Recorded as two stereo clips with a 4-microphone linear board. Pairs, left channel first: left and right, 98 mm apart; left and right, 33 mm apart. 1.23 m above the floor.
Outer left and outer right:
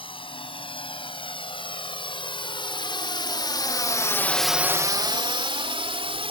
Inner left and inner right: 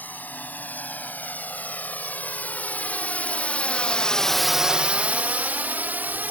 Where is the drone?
70° left (ahead or behind); by 6.3 s 80° right.